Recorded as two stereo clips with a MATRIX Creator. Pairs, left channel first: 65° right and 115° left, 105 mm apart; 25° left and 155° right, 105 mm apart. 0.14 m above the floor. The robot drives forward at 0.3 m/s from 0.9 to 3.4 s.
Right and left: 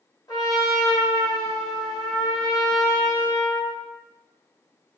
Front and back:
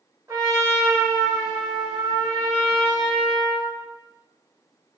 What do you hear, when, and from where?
0.3 s a trumpet: 105° right, 1.3 m; by 3.8 s 135° right, 1.6 m